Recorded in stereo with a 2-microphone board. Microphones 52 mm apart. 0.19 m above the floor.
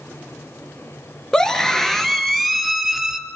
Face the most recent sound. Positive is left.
turn(degrees=-5)  # may be behind; listen again after turning